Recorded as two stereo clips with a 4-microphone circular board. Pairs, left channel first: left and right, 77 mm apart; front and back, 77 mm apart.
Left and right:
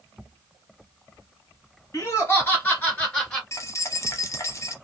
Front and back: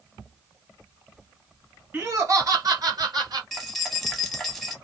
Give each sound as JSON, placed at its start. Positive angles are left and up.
{"t": 1.9, "sound": "laughter", "azimuth_deg": 125, "distance_m": 1.6}
{"t": 3.5, "sound": "keys jangling", "azimuth_deg": 90, "distance_m": 0.9}